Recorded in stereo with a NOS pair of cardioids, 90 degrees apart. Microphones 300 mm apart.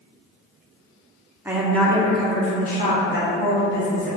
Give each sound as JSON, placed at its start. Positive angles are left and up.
{"t": 1.4, "sound": "a woman speaking", "azimuth_deg": -5, "distance_m": 0.8}